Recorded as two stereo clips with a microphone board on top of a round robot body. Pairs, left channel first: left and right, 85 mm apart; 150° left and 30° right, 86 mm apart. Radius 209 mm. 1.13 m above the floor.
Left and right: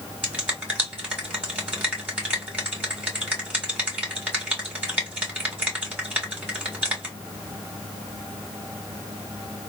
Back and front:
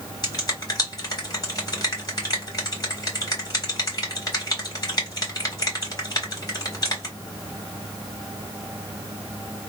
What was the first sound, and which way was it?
A finger snap, 165° right.